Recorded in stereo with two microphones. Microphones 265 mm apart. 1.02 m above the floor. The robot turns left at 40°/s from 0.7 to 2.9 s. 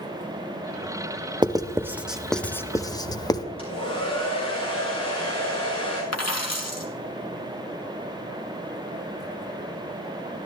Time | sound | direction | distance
1.4 | writing | 15° right (ahead or behind) | 0.8 m
3.6 | a hair dryer | 20° left (ahead or behind) | 6 m
6.1 | a dropped coin | 70° left (ahead or behind) | 2 m